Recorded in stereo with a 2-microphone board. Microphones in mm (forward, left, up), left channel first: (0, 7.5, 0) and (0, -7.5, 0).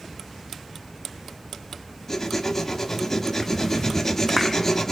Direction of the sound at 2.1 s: 25° left (ahead or behind).